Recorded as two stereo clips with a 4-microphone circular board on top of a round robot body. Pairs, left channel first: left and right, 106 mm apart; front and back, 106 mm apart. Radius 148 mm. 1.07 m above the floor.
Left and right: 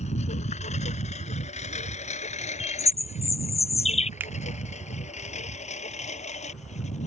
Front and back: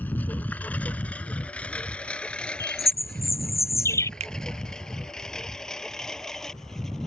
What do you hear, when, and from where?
0.0 s a lawn mower: 75° left; by 7.1 s 85° left
2.6 s a bird: 65° left
4.2 s a finger snap: 165° right